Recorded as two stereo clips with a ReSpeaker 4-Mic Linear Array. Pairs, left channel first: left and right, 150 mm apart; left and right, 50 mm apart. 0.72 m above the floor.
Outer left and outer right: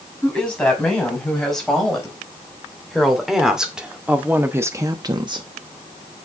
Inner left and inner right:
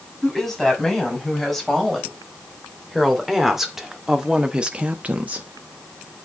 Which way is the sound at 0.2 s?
5° left (ahead or behind).